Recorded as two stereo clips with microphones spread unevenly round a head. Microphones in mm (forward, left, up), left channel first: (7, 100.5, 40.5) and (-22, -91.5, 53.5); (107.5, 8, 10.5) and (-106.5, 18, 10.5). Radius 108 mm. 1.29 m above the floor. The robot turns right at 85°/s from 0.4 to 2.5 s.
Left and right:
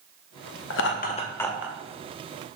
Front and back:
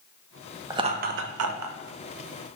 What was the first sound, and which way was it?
Laughter, 100° left.